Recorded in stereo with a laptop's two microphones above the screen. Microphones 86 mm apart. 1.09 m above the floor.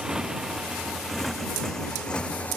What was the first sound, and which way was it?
A motorcycle, 5° right (ahead or behind).